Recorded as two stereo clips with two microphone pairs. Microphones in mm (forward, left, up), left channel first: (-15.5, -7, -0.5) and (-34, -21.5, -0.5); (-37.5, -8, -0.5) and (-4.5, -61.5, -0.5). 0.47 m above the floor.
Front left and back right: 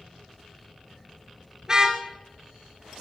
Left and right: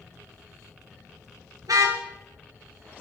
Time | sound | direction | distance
1.6 | a car horn | 70° right | 4 m